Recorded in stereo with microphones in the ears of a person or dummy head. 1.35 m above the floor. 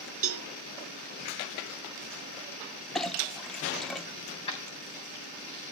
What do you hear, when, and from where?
0.2 s a cowbell: 55° right (ahead or behind), 0.5 m
3.0 s a clink: centre (ahead or behind), 0.5 m
4.3 s keys jangling: 30° left (ahead or behind), 2 m